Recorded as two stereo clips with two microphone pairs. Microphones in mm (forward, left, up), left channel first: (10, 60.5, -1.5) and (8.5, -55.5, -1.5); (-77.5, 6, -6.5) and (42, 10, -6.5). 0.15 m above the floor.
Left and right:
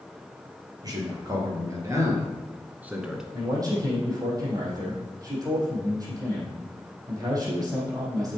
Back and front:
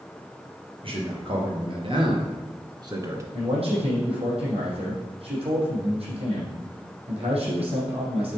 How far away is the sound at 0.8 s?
About 4 m.